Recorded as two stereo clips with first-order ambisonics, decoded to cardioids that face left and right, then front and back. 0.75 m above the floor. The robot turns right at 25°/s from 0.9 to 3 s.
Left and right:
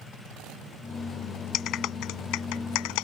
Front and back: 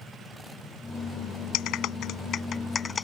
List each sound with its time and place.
1.5 s a clap: 40° left; by 3.0 s 75° left